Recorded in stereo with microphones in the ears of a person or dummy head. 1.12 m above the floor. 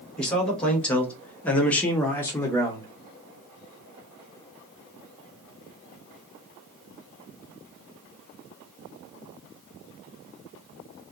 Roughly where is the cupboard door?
No cupboard door in this recording.